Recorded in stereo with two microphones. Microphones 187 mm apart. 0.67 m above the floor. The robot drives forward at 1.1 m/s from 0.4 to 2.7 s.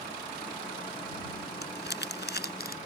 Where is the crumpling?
75° left (ahead or behind); by 2.8 s 60° left (ahead or behind).